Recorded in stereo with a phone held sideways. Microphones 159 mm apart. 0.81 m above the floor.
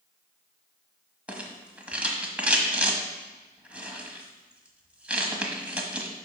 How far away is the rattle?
About 1.4 m.